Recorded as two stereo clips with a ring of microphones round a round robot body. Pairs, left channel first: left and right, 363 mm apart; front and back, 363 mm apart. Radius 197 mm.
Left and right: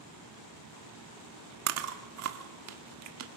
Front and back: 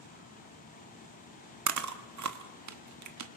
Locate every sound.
1.7 s chewing: 140° right, 1.5 m